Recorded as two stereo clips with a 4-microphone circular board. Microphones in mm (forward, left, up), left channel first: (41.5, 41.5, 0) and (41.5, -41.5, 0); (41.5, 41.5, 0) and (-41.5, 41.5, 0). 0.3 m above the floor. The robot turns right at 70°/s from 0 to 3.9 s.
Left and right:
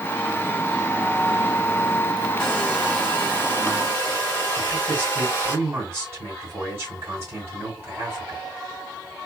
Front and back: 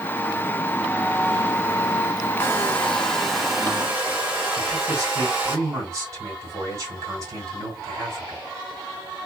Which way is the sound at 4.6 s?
140° right.